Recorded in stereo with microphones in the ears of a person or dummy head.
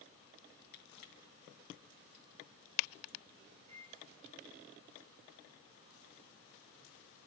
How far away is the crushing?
About 2.5 m.